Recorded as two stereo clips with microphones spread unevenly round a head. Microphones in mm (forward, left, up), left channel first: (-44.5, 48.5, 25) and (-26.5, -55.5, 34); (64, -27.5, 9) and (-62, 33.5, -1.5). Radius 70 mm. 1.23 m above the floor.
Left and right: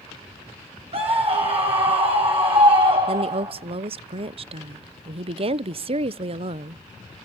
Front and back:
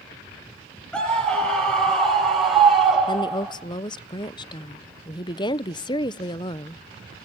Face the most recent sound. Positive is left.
turn(degrees=-80)